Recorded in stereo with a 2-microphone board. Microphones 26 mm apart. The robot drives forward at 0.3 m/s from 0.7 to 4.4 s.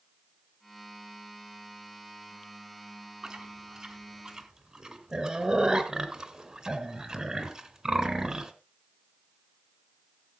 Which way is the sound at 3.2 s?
25° right (ahead or behind).